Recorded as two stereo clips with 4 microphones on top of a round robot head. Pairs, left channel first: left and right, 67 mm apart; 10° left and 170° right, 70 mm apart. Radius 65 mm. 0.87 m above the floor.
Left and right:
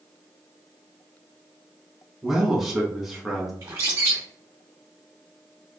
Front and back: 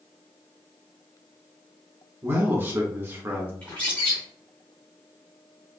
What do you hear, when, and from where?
2.2 s a man speaking: 175° right, 1.1 m
3.6 s a bird: 65° right, 0.6 m